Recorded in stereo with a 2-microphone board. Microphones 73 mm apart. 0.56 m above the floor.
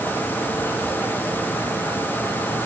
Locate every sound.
Only background noise.